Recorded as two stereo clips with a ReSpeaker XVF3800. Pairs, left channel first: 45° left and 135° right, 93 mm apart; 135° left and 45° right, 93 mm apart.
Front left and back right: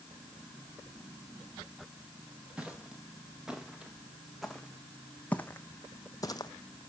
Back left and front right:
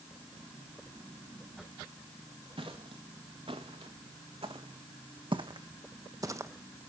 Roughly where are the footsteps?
Ahead right.